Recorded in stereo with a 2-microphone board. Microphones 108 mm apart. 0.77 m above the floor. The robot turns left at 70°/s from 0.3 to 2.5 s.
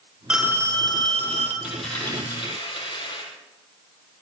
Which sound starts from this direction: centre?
A dropped coin, at 1.6 s.